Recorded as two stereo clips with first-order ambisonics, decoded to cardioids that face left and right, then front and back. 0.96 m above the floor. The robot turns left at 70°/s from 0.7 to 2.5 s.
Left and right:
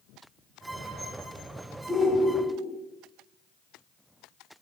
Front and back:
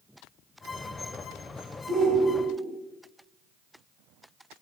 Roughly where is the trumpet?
I don't hear a trumpet.